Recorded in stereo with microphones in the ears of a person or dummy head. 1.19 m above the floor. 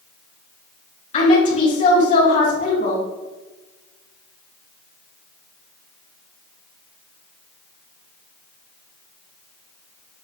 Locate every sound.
1.1 s a woman speaking: 35° left (ahead or behind), 3 m